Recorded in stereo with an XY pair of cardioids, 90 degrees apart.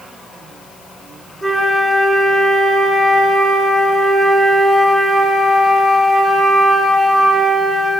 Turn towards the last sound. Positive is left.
turn(degrees=10)